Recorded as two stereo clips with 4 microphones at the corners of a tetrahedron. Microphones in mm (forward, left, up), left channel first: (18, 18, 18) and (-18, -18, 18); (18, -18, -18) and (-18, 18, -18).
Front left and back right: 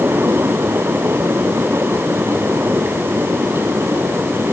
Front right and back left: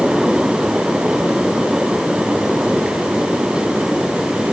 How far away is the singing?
I don't hear singing.